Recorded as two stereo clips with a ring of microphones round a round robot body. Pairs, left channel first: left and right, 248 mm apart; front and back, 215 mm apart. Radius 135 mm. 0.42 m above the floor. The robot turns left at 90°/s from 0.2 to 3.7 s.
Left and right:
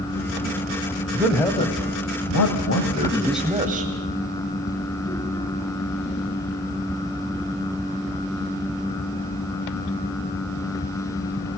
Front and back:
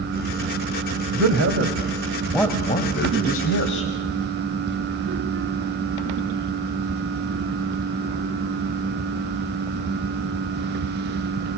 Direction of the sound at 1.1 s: 165° right.